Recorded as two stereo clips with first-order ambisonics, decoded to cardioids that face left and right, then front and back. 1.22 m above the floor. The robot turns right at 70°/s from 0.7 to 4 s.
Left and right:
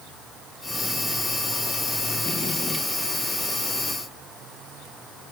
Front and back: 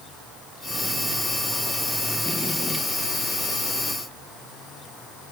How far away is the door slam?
I don't hear a door slam.